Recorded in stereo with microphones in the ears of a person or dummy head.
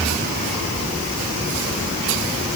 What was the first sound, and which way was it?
Only background noise.